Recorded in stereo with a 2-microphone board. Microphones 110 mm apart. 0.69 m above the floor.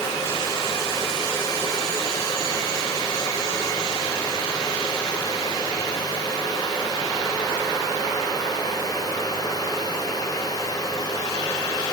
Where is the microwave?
I don't hear a microwave.